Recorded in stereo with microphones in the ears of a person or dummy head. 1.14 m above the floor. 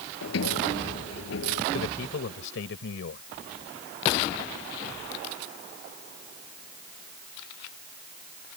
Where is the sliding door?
70° left (ahead or behind).